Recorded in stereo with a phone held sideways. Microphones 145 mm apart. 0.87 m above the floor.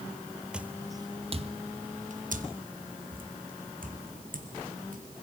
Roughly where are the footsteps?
Centre.